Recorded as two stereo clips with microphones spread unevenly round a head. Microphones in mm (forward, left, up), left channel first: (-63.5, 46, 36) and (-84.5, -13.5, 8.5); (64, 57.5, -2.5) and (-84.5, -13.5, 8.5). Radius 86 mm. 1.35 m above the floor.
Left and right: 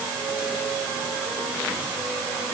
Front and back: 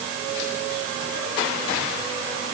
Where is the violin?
I don't hear a violin.